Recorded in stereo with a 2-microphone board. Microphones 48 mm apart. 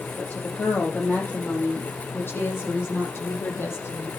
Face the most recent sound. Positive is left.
turn(degrees=60)  # may be behind; listen again after turning